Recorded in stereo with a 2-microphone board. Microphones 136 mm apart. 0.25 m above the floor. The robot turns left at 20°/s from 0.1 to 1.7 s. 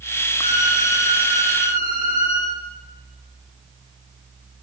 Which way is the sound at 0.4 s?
75° right (ahead or behind).